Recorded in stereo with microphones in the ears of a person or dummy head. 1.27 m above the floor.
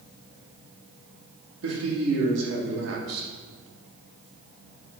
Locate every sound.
1.6 s a man speaking: 90° right, 2.5 m